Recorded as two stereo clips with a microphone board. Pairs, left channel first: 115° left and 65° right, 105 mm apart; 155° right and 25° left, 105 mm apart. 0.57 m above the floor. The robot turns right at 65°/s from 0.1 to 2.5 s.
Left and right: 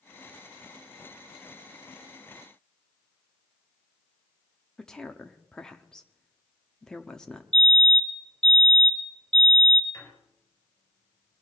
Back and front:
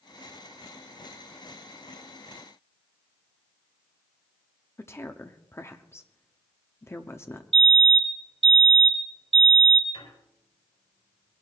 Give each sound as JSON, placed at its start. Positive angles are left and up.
{"t": 4.8, "sound": "a woman speaking", "azimuth_deg": -170, "distance_m": 0.9}
{"t": 7.5, "sound": "a fire alarm", "azimuth_deg": 30, "distance_m": 3.0}
{"t": 9.9, "sound": "a squeak", "azimuth_deg": 175, "distance_m": 4.0}